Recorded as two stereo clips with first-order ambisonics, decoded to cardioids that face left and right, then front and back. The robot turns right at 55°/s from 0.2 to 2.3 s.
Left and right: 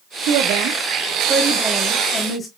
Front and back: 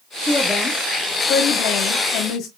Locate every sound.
0.3 s a woman speaking: 85° right, 0.9 m; by 2.5 s 25° left, 0.9 m